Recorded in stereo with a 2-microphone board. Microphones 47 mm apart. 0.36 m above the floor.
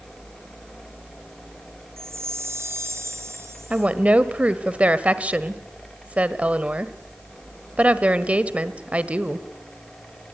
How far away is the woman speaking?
About 1.4 m.